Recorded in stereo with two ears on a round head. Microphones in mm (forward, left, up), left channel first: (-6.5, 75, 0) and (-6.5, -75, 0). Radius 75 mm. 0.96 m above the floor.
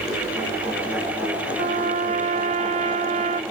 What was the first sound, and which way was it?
A trumpet, 40° right (ahead or behind).